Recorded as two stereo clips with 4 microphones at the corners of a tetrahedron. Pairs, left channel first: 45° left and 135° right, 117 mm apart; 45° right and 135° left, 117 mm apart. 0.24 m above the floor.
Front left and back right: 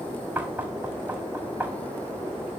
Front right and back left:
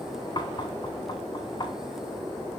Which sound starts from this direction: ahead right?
Knocking, at 0.3 s.